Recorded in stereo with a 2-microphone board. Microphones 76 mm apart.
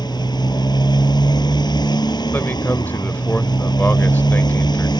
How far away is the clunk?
I don't hear a clunk.